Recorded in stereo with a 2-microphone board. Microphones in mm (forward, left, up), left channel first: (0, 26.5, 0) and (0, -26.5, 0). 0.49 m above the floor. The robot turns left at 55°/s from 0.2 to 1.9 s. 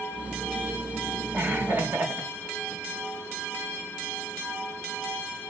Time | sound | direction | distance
1.3 | laughter | 30° right (ahead or behind) | 2.5 m